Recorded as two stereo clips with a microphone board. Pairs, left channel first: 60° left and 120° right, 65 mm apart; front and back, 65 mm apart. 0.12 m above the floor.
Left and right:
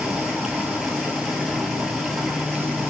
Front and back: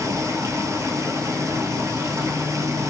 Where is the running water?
155° left, 1.0 m.